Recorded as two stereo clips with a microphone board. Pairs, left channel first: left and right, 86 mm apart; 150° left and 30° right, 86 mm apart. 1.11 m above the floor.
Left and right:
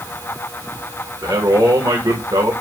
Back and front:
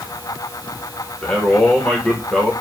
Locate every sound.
1.2 s a man speaking: 130° right, 1.0 m